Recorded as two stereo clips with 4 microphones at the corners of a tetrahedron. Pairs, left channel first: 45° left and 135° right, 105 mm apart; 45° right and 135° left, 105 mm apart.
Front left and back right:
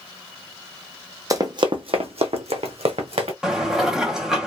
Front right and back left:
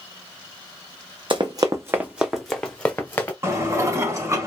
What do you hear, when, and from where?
1.3 s running footsteps: 170° left, 0.7 m; by 3.3 s 115° right, 1.1 m
3.4 s dishes clattering: 145° left, 0.7 m